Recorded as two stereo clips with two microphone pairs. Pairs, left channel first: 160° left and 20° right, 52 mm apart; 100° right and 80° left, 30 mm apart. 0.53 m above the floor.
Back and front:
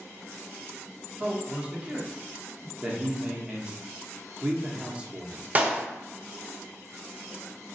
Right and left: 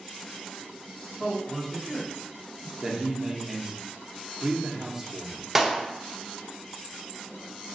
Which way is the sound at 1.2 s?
45° right.